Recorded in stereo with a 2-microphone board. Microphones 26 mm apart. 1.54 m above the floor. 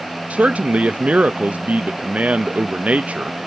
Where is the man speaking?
55° right (ahead or behind), 0.5 m.